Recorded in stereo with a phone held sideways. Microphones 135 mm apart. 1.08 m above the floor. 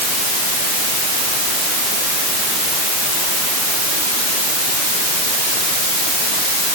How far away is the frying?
I don't hear frying.